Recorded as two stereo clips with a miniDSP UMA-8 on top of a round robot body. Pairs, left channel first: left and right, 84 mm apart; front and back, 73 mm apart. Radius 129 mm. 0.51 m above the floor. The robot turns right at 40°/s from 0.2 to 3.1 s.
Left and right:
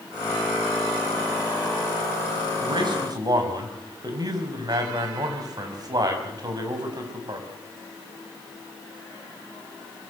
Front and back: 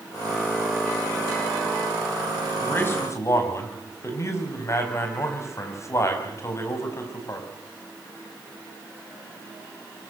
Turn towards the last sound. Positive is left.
turn(degrees=-50)